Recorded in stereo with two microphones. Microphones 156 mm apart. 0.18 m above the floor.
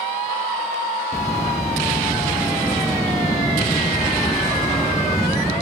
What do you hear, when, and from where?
1.1 s a bird: 20° left (ahead or behind), 4.5 m